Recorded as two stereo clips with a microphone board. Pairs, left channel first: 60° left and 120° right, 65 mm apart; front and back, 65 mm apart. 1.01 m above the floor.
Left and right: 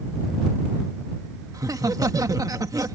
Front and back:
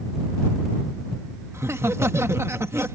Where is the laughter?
135° right.